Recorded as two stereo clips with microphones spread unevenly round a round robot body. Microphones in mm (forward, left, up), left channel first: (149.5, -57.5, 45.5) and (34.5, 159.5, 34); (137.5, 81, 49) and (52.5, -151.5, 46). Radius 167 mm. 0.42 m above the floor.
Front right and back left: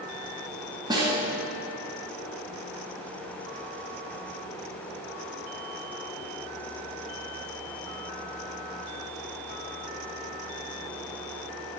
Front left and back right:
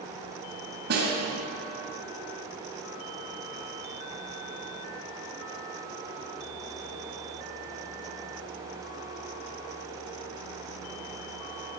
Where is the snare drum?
165° right, 1.7 m.